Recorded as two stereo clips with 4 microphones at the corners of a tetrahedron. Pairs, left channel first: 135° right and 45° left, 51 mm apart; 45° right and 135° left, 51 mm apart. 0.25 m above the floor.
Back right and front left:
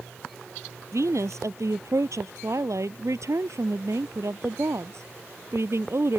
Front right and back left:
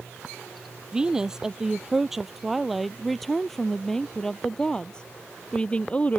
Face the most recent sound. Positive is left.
turn(degrees=20)